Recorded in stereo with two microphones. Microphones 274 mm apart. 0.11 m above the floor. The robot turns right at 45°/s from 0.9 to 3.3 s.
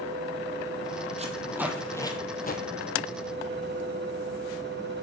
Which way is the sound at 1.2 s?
25° right (ahead or behind).